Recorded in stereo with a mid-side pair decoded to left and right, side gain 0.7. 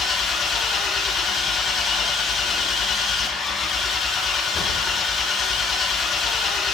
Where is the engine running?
35° left, 1.9 m.